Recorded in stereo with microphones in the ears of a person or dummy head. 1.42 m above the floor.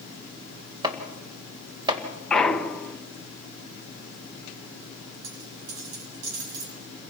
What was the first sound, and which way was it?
Chopping, 20° right (ahead or behind).